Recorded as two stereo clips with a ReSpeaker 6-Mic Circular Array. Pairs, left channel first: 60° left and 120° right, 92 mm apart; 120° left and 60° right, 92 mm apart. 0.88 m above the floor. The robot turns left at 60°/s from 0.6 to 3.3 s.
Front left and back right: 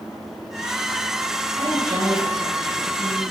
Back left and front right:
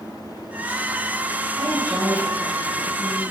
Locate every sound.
1.6 s a woman speaking: 95° right, 7.5 m; by 3.2 s 170° left, 7.5 m